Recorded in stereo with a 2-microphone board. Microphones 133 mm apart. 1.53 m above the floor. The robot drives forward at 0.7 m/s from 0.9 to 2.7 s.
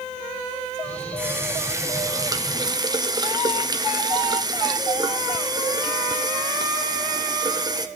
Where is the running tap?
15° right (ahead or behind), 1.3 m; by 7.9 s 30° right (ahead or behind), 0.7 m.